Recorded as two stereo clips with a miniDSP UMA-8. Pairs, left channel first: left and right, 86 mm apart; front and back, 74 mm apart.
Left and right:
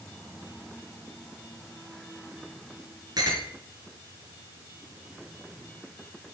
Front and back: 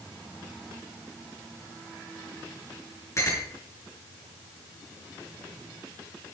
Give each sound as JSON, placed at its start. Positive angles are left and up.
{"t": 3.2, "sound": "a clink", "azimuth_deg": -50, "distance_m": 5.0}